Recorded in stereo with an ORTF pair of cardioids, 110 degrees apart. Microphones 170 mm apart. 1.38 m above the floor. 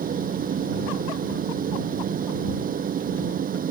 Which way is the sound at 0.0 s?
50° right.